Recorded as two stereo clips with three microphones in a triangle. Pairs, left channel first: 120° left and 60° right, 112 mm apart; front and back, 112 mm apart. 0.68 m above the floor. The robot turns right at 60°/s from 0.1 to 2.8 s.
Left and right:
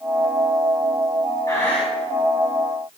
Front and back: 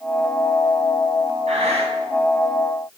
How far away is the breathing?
About 4 m.